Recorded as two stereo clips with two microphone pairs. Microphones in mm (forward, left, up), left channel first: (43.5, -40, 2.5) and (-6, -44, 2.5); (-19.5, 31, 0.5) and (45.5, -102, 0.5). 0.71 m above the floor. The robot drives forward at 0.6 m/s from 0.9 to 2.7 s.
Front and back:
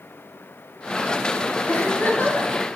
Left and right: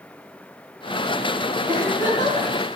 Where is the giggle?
60° left, 5 m; by 2.5 s 65° left, 5 m.